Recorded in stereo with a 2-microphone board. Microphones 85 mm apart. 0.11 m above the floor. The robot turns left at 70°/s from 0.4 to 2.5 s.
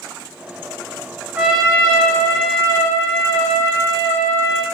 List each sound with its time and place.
1.4 s a trumpet: 20° right (ahead or behind), 1.1 m; by 4.6 s 20° left (ahead or behind), 1.1 m